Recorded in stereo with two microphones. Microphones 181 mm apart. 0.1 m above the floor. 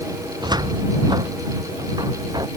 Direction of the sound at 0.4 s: 20° right (ahead or behind).